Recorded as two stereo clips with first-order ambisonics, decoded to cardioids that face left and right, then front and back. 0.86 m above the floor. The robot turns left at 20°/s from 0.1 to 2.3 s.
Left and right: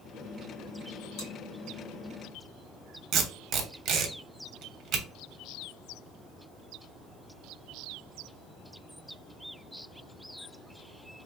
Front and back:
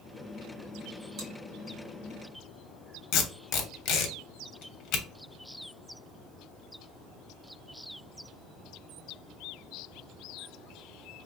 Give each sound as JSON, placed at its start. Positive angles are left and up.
{"t": 1.2, "sound": "chewing", "azimuth_deg": 135, "distance_m": 1.9}
{"t": 3.1, "sound": "tape being pulled", "azimuth_deg": -40, "distance_m": 0.8}